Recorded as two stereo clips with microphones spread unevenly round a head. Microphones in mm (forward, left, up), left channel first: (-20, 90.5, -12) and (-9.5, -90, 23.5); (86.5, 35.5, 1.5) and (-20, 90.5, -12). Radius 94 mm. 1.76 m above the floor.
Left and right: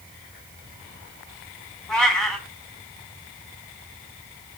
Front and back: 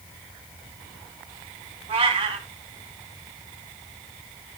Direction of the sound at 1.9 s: 170° right.